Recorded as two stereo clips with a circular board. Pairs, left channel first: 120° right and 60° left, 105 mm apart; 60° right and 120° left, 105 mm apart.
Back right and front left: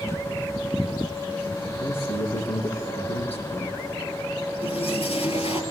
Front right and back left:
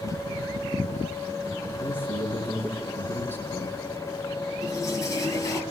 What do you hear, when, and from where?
1.8 s a man speaking: 130° right, 7 m
4.6 s a toilet flushing: 120° right, 3 m